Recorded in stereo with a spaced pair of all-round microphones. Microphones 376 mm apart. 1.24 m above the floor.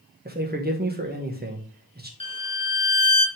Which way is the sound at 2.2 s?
15° left (ahead or behind).